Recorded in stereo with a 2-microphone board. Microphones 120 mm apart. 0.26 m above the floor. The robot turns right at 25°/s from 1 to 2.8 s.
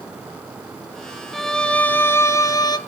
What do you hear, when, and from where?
1.3 s a violin: straight ahead, 1.0 m; by 2.8 s 35° left, 1.0 m